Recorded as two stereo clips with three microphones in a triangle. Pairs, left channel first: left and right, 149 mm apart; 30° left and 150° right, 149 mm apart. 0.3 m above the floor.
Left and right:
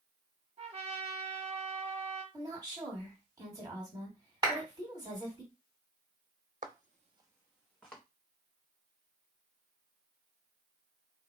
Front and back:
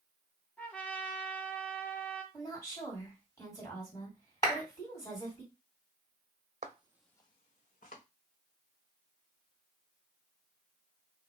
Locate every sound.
0.6 s a trumpet: 50° right, 0.9 m
2.3 s a woman speaking: 35° right, 2.5 m
4.4 s a clap: 35° right, 2 m
6.6 s footsteps: 110° right, 0.7 m; by 8.0 s 10° left, 1.5 m